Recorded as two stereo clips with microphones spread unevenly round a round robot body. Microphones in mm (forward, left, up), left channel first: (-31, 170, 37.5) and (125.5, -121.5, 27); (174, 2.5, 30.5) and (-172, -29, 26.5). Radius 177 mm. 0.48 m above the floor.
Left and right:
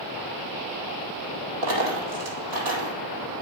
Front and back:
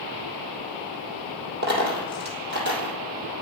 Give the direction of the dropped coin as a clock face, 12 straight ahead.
4 o'clock.